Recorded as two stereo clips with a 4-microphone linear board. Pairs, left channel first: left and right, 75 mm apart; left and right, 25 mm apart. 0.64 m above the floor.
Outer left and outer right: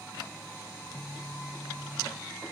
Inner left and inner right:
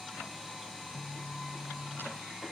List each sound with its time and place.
0.7 s a phone buzzing: centre (ahead or behind), 0.5 m